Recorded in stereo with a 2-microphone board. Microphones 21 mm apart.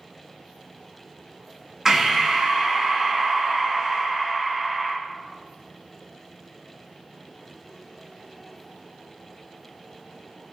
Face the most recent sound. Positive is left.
turn(degrees=-15)  # may be behind; listen again after turning